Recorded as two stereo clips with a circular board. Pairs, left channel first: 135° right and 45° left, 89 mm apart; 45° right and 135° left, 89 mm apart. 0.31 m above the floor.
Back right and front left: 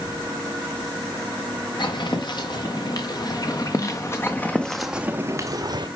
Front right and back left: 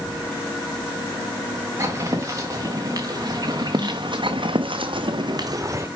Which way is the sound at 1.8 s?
170° right.